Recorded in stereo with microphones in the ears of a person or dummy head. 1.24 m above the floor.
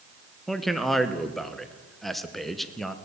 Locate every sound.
0.5 s a man speaking: centre (ahead or behind), 0.8 m